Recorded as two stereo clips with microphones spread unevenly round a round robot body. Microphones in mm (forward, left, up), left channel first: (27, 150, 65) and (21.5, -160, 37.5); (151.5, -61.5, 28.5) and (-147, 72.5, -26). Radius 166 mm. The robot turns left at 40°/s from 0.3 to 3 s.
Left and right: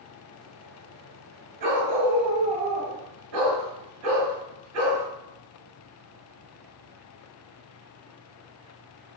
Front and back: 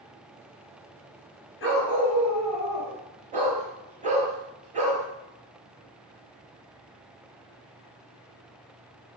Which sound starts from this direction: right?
A dog barking, at 1.6 s.